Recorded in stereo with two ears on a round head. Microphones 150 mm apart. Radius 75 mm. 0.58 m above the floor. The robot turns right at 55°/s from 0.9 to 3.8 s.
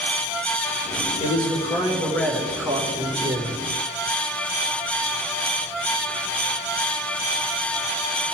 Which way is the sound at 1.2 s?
115° left.